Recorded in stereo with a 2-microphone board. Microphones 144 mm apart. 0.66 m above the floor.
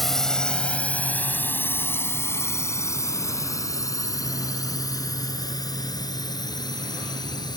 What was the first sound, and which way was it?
A drone, centre (ahead or behind).